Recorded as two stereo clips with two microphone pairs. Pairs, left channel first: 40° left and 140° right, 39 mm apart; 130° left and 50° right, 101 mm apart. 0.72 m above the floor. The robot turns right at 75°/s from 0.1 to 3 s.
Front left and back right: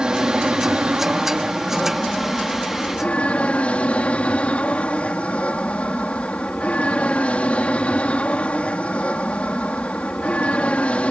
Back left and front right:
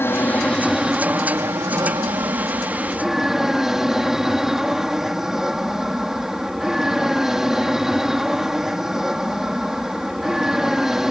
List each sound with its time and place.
0.0 s an aircraft: 175° left; by 11.1 s 30° left